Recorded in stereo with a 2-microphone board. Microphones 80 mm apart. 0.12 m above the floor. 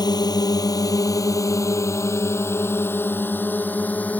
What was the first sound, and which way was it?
A drone, 60° left (ahead or behind).